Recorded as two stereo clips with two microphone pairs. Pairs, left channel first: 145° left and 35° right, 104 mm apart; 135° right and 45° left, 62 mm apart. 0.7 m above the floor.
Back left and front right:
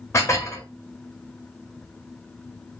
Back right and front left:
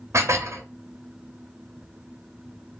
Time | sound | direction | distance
0.1 | dishes clattering | 85° left | 0.6 m